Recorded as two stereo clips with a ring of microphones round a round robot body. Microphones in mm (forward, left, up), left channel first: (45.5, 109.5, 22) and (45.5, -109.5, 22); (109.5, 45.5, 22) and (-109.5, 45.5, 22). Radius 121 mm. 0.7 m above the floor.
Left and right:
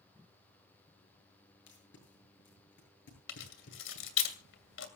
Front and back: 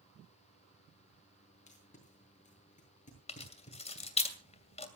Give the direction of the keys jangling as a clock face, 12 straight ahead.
10 o'clock.